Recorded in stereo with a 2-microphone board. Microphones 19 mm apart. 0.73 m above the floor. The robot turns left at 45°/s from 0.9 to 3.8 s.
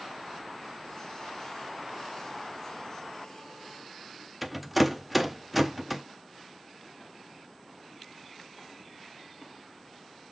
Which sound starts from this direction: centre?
A rattle, at 4.4 s.